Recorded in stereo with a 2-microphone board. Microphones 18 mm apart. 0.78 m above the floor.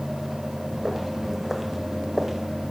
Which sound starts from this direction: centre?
Footsteps, at 0.7 s.